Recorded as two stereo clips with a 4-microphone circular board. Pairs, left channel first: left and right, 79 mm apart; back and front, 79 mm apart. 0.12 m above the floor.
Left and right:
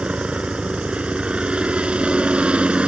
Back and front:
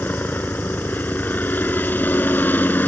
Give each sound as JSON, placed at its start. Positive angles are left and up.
{"t": 0.0, "sound": "a helicopter", "azimuth_deg": -150}